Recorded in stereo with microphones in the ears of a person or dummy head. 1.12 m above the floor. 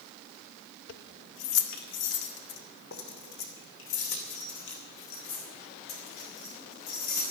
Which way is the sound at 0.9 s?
80° left.